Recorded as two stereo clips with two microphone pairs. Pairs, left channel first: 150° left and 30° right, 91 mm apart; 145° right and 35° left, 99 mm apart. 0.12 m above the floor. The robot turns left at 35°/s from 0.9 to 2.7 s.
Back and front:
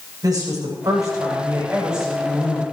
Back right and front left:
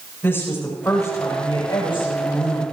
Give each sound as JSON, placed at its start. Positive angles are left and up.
{"t": 0.2, "sound": "a woman speaking", "azimuth_deg": -80, "distance_m": 8.0}